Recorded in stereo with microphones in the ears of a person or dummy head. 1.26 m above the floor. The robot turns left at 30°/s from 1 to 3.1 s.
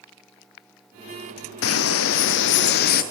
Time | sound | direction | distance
1.6 | a bird | 95° left | 0.7 m